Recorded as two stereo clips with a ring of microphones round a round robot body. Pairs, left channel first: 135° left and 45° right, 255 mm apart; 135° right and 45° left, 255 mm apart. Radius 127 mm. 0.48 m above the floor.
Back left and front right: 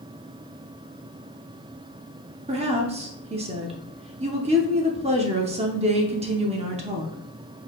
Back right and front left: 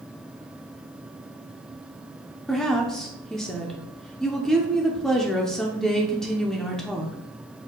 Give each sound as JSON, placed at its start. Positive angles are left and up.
{"t": 2.5, "sound": "a woman speaking", "azimuth_deg": -50, "distance_m": 0.7}